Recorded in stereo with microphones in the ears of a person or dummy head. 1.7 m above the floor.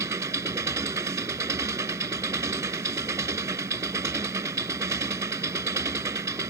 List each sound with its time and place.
0.0 s an engine running: 15° right (ahead or behind)